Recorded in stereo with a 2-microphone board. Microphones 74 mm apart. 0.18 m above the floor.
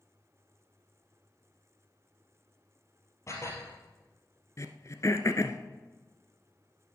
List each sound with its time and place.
3.3 s dishes clattering: 40° left (ahead or behind), 3 m
4.6 s throat clearing: 45° left (ahead or behind), 1.0 m